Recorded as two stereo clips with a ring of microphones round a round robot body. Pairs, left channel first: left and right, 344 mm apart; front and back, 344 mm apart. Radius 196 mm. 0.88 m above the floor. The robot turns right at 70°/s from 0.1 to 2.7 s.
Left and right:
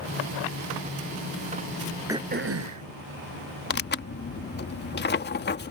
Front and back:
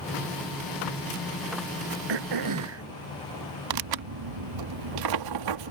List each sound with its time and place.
2.1 s throat clearing: 175° right; by 2.9 s 130° right
3.7 s tearing paper: 150° left